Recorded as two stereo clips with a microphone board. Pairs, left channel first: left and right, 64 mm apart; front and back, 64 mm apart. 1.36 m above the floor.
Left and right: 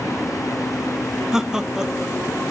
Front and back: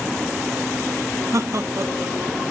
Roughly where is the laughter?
Behind.